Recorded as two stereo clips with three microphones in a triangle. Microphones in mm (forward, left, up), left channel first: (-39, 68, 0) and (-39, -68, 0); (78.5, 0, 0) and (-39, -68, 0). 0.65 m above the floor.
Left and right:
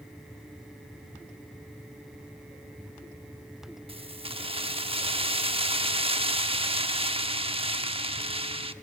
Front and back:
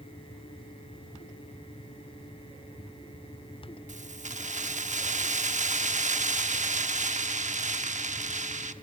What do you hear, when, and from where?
3.9 s keys jangling: 130° right, 0.9 m